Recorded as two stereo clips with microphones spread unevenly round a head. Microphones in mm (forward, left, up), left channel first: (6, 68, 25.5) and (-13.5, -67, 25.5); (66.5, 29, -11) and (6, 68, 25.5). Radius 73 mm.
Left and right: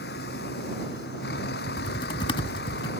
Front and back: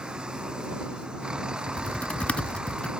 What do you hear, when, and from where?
0.0 s a vehicle: 70° left
1.7 s typing on a keyboard: 80° left